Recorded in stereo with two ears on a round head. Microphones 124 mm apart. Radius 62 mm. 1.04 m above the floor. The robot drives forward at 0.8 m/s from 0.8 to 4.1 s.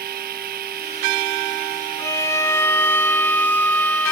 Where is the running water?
75° right (ahead or behind); by 4.1 s 70° right (ahead or behind).